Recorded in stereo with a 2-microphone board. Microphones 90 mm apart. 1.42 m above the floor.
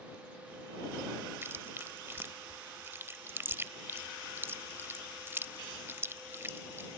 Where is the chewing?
25° right (ahead or behind).